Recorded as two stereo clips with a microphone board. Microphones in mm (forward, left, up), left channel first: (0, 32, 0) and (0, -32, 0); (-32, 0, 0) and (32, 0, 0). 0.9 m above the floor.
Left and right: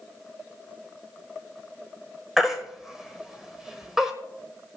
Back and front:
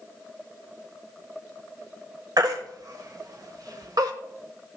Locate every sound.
2.4 s a baby crying: 5° right, 1.3 m